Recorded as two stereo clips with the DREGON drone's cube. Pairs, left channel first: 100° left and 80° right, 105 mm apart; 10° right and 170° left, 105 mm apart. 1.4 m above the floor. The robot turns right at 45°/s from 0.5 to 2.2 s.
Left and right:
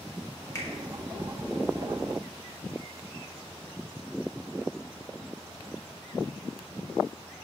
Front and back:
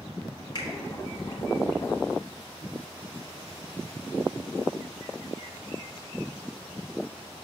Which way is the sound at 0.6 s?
40° left.